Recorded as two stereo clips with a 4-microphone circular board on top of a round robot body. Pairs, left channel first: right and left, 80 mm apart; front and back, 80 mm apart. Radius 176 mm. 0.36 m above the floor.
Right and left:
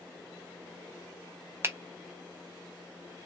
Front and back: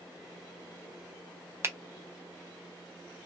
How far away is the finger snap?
About 0.7 m.